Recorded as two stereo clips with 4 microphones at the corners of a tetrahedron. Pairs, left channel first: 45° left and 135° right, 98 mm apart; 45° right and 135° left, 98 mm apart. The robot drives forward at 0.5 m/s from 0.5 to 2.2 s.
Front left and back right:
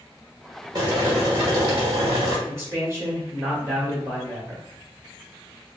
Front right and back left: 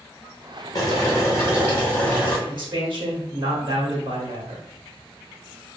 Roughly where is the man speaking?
Behind.